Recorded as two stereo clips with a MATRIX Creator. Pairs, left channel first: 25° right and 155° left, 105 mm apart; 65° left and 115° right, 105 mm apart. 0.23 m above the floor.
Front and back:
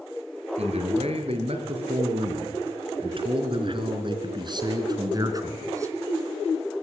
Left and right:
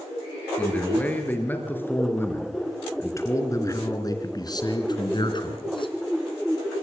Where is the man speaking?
145° left, 5 m; by 6.0 s 100° left, 3 m.